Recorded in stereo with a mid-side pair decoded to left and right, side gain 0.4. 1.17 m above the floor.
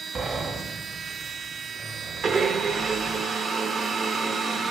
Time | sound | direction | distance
0.1 | a sliding door | 60° right | 1.1 m
2.2 | a blender | 65° right | 0.8 m